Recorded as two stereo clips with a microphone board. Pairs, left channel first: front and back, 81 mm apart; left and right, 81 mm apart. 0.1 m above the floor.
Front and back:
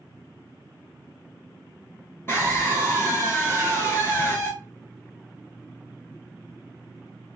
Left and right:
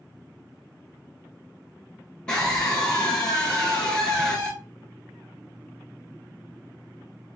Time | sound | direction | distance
2.3 | a scream | 20° left | 1.5 m